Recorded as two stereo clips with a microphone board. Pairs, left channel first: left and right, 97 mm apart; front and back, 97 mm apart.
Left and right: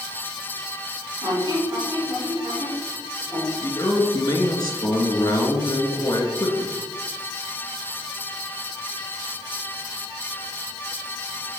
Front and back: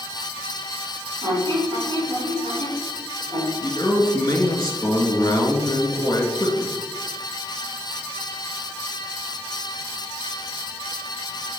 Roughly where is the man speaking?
Ahead left.